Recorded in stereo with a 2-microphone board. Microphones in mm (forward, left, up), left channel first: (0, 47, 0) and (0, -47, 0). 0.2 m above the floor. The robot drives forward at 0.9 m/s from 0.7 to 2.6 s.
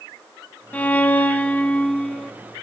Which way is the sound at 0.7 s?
15° left (ahead or behind).